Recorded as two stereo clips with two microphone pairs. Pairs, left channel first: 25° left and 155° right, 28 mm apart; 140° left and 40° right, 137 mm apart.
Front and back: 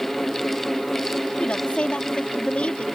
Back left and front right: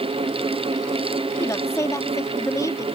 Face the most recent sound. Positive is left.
turn(degrees=70)